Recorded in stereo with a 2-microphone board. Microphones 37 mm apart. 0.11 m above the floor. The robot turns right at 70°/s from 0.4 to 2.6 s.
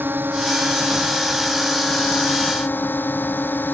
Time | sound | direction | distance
0.0 | a drone | 80° right | ?